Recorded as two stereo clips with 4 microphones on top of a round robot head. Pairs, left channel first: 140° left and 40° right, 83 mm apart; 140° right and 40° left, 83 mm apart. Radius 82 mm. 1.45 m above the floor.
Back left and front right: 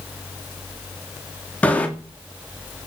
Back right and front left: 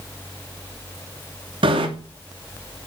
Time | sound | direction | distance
1.6 | a bicycle bell | 65° left | 2.5 m